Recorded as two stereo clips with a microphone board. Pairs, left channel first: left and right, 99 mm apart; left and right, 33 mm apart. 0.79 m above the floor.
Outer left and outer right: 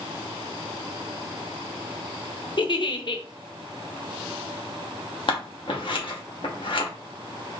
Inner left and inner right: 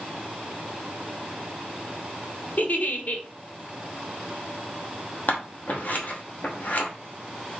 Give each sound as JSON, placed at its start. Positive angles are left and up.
{"t": 2.6, "sound": "a giggle", "side_deg": 50, "distance_m": 0.6}
{"t": 5.3, "sound": "scissors", "side_deg": 55, "distance_m": 1.0}